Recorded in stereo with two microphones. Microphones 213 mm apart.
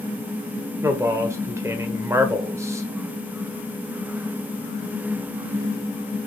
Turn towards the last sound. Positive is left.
turn(degrees=-10)  # may be behind; listen again after turning